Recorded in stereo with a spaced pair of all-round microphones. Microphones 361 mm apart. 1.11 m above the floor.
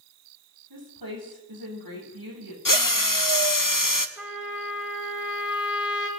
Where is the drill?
60° left (ahead or behind), 0.9 m.